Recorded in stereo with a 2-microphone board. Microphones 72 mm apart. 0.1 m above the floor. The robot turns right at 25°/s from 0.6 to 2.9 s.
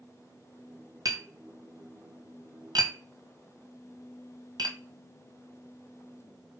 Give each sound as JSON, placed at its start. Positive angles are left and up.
{"t": 1.1, "sound": "tapping", "side_deg": -60, "distance_m": 1.5}